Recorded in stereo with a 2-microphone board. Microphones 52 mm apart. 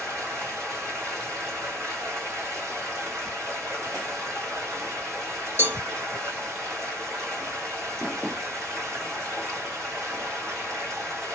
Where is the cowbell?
45° right (ahead or behind), 1.2 m.